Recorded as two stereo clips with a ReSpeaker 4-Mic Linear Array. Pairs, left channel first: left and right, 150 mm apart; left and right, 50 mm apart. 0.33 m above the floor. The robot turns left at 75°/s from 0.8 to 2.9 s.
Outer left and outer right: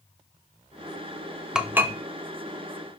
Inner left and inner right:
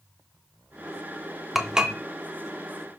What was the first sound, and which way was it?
Dishes clattering, 5° right (ahead or behind).